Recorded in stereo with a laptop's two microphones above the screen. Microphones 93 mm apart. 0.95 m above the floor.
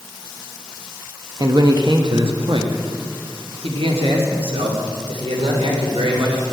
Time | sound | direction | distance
1.4 | a man speaking | 40° right (ahead or behind) | 0.8 m